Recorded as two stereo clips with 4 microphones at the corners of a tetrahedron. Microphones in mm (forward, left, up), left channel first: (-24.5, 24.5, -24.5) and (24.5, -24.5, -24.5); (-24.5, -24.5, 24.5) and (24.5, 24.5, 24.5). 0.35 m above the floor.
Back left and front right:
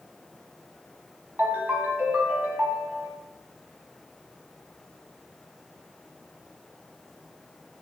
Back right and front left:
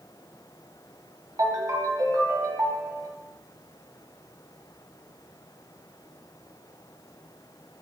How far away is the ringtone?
About 1.3 m.